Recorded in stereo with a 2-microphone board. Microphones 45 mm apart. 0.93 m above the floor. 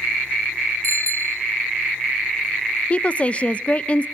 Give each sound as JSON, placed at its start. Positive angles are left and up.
{"t": 0.8, "sound": "a bicycle bell", "side_deg": 65, "distance_m": 2.5}
{"t": 2.9, "sound": "a woman speaking", "side_deg": 25, "distance_m": 0.5}